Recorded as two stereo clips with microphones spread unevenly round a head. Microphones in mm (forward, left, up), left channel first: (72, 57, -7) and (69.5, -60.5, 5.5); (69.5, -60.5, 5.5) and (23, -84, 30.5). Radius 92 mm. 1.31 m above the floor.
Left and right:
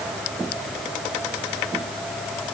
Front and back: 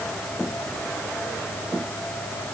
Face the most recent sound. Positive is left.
No sound to turn to.